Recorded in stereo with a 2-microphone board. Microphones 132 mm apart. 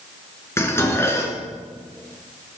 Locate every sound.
0.6 s dishes clattering: 20° left (ahead or behind), 2.5 m